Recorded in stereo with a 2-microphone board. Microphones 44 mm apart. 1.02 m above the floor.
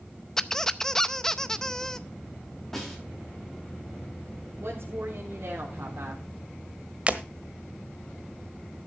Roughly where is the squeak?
Centre.